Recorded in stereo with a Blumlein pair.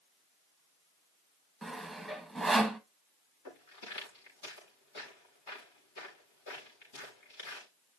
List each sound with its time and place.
1.6 s sawing: straight ahead, 1.5 m
3.5 s footsteps: 55° left, 7 m